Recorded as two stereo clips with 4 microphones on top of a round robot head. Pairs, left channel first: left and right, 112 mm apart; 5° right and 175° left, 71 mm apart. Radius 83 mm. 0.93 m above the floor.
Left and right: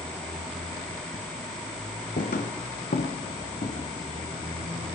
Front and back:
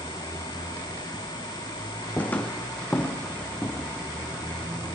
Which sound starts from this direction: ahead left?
Footsteps, at 2.2 s.